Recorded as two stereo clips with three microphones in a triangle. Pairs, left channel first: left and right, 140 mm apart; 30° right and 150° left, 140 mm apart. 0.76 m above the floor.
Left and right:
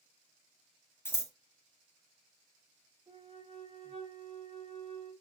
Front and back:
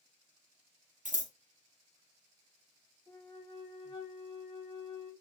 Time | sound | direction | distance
1.1 | scissors | 160° left | 0.8 m
3.1 | a flute | 75° right | 1.4 m